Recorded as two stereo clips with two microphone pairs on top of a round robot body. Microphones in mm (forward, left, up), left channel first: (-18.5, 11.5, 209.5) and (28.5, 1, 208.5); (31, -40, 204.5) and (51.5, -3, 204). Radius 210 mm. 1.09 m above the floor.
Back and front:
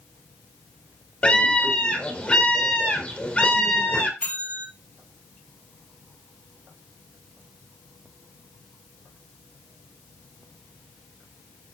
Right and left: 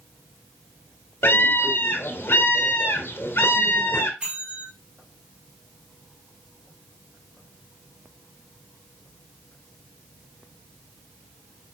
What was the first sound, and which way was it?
A scream, 125° right.